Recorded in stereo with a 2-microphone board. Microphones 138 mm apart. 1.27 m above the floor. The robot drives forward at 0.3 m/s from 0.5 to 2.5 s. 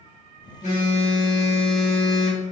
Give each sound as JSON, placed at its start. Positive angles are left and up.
{"t": 0.6, "sound": "a phone buzzing", "side_deg": 60, "distance_m": 1.2}